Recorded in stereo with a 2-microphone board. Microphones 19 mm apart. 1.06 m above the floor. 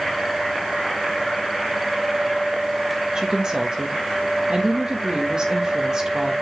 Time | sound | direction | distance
3.1 | a woman speaking | 40° right (ahead or behind) | 1.7 m